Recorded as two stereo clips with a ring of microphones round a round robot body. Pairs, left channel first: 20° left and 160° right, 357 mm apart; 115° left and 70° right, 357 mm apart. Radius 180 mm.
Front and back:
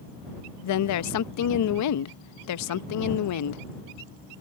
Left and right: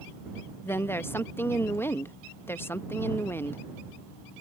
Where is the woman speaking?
30° left.